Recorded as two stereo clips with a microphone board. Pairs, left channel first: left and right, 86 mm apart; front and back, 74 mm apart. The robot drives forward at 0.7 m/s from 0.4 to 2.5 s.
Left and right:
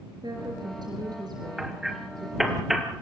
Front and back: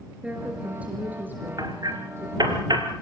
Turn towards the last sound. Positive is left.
turn(degrees=-175)